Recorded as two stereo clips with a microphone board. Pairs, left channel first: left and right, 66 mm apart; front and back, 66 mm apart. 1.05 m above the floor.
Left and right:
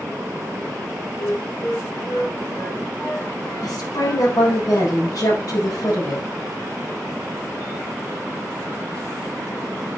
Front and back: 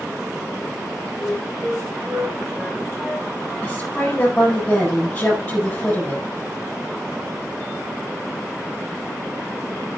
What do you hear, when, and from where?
1.2 s a flute: 90° left, 7.5 m
3.6 s a woman speaking: 75° left, 7.5 m